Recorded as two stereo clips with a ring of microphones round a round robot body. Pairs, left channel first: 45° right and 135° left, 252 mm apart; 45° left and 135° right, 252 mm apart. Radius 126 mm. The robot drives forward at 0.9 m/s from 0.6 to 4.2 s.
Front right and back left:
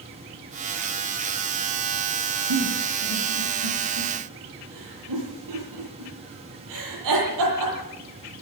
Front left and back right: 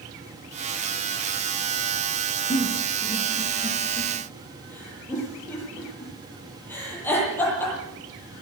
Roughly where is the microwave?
No microwave in this recording.